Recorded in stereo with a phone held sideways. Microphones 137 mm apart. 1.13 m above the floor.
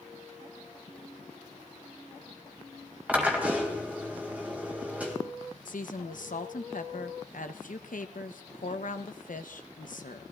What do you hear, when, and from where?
3.1 s a drill: 10° right (ahead or behind), 2.5 m
5.7 s a woman speaking: 75° left (ahead or behind), 1.0 m